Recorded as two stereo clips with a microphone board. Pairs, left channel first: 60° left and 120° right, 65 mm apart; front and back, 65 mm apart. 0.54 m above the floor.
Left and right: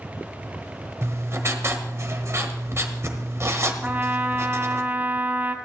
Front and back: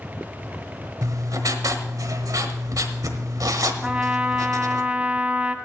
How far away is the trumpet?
About 0.9 m.